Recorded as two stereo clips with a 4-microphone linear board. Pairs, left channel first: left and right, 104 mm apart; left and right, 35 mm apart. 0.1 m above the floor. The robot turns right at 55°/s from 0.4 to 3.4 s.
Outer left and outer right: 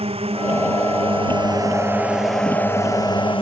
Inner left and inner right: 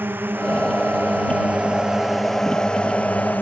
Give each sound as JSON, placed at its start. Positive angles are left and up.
{"t": 0.0, "sound": "a drone", "azimuth_deg": -105}